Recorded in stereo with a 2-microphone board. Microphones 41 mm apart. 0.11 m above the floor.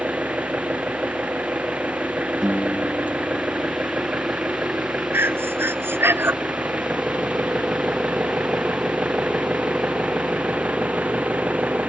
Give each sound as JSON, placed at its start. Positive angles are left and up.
{"t": 0.0, "sound": "an engine running", "side_deg": -35}
{"t": 2.4, "sound": "a guitar", "side_deg": -10}
{"t": 5.1, "sound": "breathing", "side_deg": -65}